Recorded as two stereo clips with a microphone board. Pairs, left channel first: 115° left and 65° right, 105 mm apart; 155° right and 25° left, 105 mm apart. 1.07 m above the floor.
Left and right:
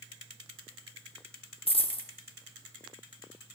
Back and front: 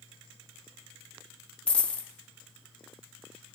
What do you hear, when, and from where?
1.7 s a dropped coin: 125° left, 0.8 m